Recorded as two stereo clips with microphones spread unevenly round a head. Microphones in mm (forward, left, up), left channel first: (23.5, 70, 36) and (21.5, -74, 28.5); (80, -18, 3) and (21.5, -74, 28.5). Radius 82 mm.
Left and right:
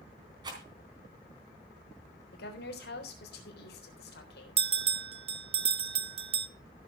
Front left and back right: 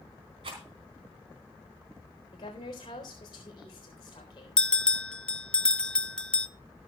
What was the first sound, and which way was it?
A rattle, 155° right.